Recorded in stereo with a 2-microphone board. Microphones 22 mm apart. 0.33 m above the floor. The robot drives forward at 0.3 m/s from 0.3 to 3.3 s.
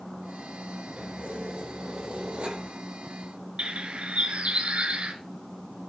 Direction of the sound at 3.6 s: 70° right (ahead or behind).